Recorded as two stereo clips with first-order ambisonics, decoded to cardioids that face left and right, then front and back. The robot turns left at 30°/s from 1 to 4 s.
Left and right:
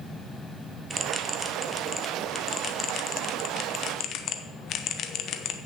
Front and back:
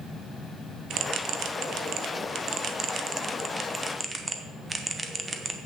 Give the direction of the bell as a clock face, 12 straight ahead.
5 o'clock.